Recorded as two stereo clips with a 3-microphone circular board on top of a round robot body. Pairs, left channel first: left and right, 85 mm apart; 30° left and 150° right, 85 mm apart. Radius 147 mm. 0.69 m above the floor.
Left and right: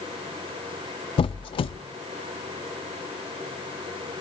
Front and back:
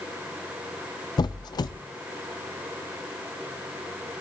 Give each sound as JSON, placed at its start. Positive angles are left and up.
{"t": 1.2, "sound": "a squeak", "azimuth_deg": 70, "distance_m": 0.5}